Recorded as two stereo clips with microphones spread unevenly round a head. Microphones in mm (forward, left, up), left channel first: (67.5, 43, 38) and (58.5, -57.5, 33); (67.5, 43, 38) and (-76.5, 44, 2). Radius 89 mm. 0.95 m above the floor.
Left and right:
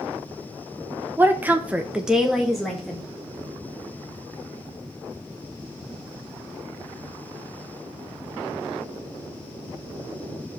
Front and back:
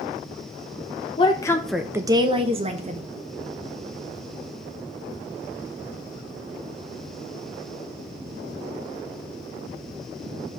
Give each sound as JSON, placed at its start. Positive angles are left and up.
{"t": 1.2, "sound": "a woman speaking", "azimuth_deg": -45, "distance_m": 0.9}